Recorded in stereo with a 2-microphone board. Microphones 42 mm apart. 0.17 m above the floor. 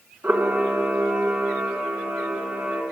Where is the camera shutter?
45° right (ahead or behind), 1.6 m.